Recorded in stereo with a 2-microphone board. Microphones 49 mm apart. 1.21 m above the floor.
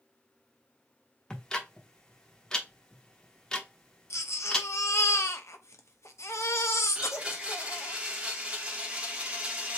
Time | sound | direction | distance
1.3 | ticking | 15° left (ahead or behind) | 0.9 m
4.1 | a baby crying | 75° left (ahead or behind) | 0.7 m
7.0 | a blender | 25° right (ahead or behind) | 0.9 m